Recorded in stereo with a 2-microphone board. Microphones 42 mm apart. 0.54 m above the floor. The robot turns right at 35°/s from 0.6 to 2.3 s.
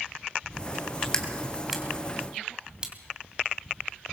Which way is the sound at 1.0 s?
20° left (ahead or behind).